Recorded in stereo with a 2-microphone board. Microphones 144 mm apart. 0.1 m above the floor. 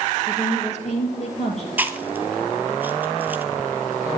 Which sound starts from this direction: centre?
Chewing, at 1.8 s.